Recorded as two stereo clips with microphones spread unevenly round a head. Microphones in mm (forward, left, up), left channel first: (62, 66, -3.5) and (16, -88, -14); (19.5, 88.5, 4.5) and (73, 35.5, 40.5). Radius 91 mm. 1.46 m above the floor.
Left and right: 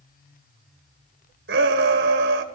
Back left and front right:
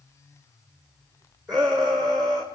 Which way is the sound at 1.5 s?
145° right.